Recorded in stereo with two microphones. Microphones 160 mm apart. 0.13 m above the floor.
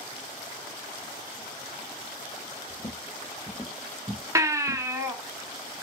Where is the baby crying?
20° right (ahead or behind), 0.9 m.